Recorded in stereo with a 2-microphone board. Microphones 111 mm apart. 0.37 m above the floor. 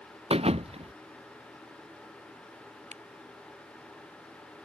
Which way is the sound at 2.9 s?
85° right.